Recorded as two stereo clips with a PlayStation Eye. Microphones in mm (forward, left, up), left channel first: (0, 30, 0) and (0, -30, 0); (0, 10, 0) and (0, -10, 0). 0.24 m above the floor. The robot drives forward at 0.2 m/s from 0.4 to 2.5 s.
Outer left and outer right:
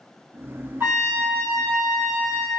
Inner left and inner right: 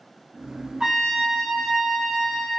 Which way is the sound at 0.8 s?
35° right (ahead or behind).